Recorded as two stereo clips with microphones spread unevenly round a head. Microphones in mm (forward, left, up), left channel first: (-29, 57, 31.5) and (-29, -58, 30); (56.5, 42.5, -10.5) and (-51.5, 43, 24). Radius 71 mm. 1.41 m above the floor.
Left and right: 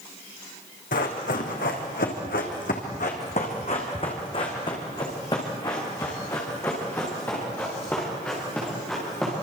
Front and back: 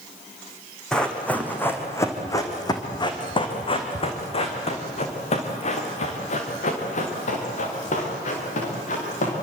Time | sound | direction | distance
0.9 | running footsteps | 90° left | 4 m